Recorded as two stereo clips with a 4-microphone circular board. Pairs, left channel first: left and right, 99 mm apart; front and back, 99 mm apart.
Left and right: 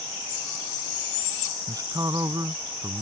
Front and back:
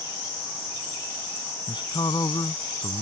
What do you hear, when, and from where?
1.7 s a man speaking: 40° right